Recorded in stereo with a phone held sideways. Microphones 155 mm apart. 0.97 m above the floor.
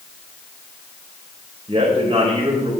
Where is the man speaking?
40° right (ahead or behind), 3.5 m.